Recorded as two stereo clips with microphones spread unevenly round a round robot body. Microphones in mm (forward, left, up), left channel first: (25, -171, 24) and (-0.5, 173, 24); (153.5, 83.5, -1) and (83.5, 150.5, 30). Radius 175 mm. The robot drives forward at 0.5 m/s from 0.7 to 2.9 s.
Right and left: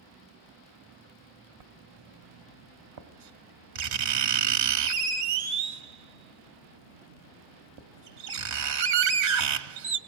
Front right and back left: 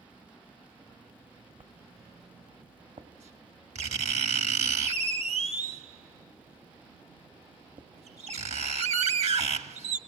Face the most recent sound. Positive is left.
turn(degrees=135)